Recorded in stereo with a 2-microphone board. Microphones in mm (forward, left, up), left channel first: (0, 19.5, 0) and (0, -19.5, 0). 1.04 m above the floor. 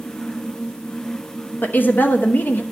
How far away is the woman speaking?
About 1.0 m.